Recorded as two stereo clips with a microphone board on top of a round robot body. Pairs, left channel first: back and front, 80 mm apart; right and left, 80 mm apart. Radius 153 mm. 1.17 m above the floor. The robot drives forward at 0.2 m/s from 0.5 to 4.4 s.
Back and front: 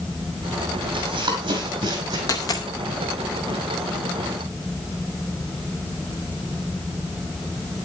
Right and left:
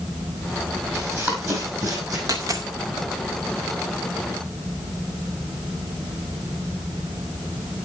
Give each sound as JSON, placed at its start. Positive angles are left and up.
{"t": 0.9, "sound": "running footsteps", "azimuth_deg": 25, "distance_m": 2.0}
{"t": 2.3, "sound": "a dropped coin", "azimuth_deg": 135, "distance_m": 0.6}